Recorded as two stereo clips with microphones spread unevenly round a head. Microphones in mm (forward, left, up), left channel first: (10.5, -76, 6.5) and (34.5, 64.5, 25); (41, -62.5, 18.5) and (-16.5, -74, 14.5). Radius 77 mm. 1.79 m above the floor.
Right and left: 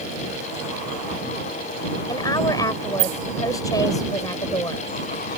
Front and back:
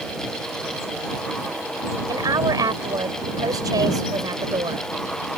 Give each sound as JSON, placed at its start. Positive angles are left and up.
{"t": 2.1, "sound": "a woman speaking", "azimuth_deg": -170}